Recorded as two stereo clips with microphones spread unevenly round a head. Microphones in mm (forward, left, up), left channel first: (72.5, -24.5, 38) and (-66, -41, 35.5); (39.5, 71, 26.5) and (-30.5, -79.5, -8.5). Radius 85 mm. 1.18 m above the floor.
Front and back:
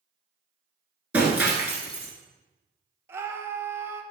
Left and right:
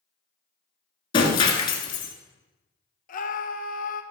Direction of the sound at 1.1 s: 105° left.